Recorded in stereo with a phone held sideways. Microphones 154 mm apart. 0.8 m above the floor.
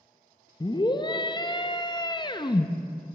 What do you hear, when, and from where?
0.6 s a scream: 30° left (ahead or behind), 0.5 m